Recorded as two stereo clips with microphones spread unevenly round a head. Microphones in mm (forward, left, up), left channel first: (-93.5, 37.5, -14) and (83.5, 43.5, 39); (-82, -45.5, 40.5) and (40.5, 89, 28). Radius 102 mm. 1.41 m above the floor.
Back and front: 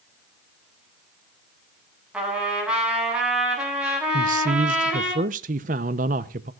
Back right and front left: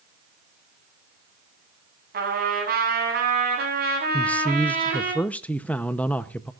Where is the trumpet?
85° left, 8.5 m.